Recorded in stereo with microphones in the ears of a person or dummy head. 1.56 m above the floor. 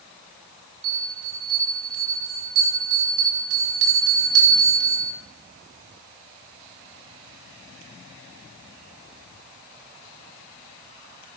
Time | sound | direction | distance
0.8 | a bell | 80° right | 4.5 m